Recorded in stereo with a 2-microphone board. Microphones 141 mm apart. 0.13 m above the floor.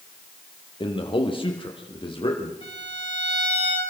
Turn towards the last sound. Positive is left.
turn(degrees=45)  # may be behind; listen again after turning